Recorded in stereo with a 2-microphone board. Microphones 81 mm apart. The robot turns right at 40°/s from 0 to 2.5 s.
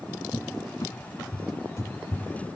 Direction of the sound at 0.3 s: 40° left (ahead or behind).